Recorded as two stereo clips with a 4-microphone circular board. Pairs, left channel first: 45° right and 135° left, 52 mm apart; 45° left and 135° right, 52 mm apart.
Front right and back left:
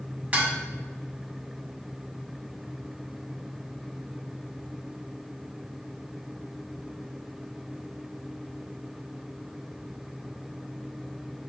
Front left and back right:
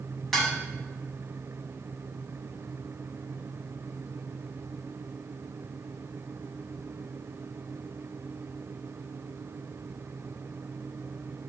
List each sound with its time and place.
0.3 s dishes clattering: 125° left, 1.0 m